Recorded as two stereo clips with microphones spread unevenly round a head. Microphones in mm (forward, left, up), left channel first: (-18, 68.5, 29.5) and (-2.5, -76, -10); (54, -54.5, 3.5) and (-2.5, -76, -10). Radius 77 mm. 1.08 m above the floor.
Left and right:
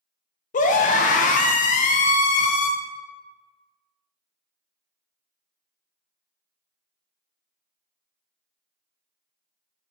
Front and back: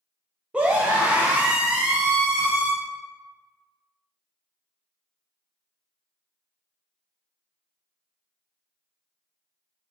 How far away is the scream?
About 0.5 m.